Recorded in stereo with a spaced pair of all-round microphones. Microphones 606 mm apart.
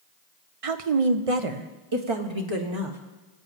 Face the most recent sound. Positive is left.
turn(degrees=-45)  # may be behind; listen again after turning